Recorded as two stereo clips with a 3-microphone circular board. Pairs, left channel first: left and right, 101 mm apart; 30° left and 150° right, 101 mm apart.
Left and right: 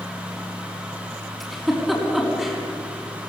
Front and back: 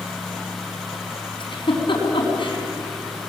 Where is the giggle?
Straight ahead, 5 m.